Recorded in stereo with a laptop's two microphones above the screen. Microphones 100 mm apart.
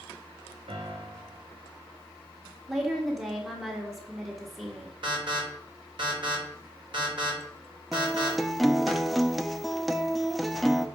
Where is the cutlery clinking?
I don't hear cutlery clinking.